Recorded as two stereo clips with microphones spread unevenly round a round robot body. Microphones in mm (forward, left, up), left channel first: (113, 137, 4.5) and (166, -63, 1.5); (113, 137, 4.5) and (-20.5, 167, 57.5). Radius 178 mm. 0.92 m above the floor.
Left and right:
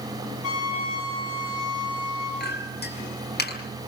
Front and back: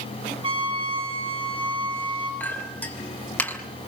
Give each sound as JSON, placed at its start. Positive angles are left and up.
{"t": 0.4, "sound": "a trumpet", "azimuth_deg": 125, "distance_m": 7.5}
{"t": 2.4, "sound": "a clink", "azimuth_deg": 65, "distance_m": 5.0}